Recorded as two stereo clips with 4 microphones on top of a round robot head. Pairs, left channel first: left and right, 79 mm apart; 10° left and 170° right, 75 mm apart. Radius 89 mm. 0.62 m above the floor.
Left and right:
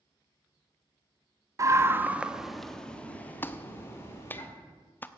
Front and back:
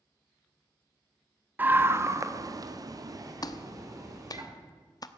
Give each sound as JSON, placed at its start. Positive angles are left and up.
{"t": 1.6, "sound": "a scream", "azimuth_deg": -115, "distance_m": 1.3}
{"t": 3.4, "sound": "a clap", "azimuth_deg": 30, "distance_m": 0.9}